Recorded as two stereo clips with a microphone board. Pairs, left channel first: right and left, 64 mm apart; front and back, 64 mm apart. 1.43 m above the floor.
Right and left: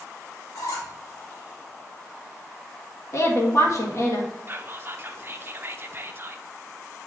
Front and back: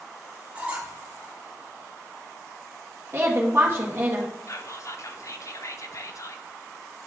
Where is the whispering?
35° left, 0.7 m.